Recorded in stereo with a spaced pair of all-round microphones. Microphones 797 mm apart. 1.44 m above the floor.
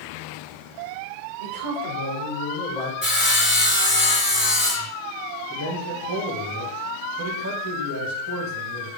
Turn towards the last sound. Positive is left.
turn(degrees=-25)  # may be behind; listen again after turning